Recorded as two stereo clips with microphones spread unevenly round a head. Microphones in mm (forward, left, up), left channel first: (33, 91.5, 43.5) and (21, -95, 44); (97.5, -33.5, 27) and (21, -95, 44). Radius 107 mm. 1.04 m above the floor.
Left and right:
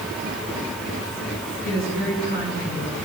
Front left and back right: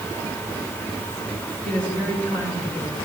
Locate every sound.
1.6 s a woman speaking: 135° left, 9.5 m